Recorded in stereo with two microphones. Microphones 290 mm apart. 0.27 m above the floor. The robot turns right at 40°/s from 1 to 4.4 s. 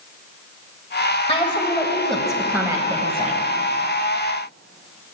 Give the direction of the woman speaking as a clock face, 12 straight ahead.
7 o'clock.